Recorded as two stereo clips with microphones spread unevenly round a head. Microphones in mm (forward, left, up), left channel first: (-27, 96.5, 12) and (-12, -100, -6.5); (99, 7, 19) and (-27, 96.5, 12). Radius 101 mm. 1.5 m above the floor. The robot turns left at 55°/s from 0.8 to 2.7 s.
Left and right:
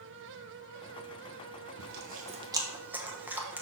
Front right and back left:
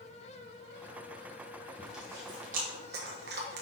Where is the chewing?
120° right, 1.0 m; by 3.6 s 170° right, 1.0 m.